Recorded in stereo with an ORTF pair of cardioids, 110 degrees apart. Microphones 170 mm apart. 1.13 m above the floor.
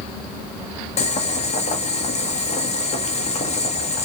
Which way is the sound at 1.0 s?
40° left.